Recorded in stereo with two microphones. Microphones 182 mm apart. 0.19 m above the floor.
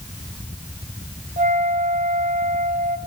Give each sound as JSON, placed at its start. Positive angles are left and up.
{"t": 1.4, "sound": "a flute", "side_deg": -45, "distance_m": 1.4}